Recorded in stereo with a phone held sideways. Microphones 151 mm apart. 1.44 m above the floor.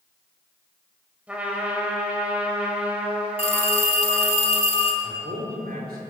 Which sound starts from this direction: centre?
A trumpet, at 1.3 s.